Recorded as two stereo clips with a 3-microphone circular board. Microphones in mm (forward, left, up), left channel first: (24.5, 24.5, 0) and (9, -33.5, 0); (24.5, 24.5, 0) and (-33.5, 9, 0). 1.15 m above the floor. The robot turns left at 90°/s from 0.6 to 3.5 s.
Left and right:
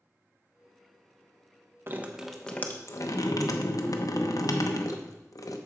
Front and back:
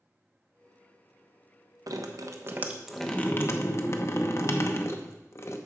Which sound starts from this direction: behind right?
Dripping, at 1.9 s.